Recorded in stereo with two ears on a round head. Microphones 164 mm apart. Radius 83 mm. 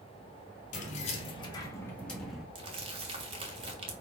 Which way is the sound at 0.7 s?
40° left (ahead or behind).